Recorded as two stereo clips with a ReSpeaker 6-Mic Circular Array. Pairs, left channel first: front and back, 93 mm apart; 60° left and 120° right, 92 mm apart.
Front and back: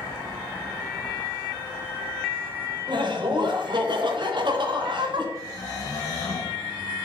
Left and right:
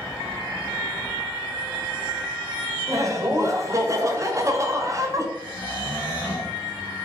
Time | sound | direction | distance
2.9 | laughter | 170° right | 0.9 m
5.3 | snoring | 40° right | 2.5 m